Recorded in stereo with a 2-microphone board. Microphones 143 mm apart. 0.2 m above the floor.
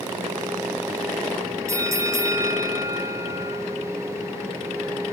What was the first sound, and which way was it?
A bell, 20° right (ahead or behind).